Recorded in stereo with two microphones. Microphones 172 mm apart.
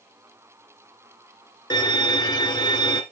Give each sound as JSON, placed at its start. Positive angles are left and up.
{"t": 1.7, "sound": "a violin", "side_deg": 25, "distance_m": 1.9}